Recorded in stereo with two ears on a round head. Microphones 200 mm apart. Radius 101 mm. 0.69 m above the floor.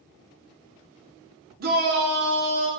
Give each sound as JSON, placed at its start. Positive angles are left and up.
{"t": 1.6, "sound": "a shout", "side_deg": -45, "distance_m": 0.8}